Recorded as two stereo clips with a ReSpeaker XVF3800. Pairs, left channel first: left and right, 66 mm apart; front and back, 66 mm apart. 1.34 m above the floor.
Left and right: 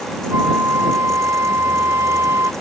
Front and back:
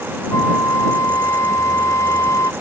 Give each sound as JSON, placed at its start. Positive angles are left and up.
{"t": 0.3, "sound": "a flute", "azimuth_deg": -40}